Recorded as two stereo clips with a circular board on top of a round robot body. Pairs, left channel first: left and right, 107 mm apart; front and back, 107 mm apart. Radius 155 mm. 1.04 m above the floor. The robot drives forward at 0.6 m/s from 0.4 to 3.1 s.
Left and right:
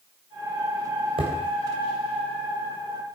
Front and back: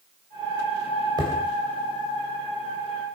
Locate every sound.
1.2 s hammering: 125° right, 3.5 m; by 3.2 s 140° right, 4.5 m